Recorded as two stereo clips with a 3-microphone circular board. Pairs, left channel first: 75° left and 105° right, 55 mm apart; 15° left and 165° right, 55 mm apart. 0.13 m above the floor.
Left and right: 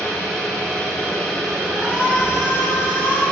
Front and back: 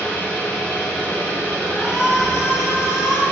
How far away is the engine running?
About 1.0 m.